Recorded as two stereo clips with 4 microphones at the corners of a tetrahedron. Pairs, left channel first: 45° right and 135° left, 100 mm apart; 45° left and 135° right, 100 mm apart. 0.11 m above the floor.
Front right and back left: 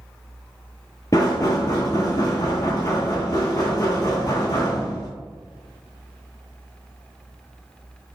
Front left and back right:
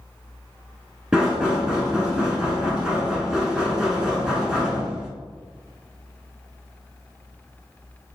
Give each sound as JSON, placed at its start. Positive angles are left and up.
{"t": 1.1, "sound": "knocking", "azimuth_deg": -55, "distance_m": 1.0}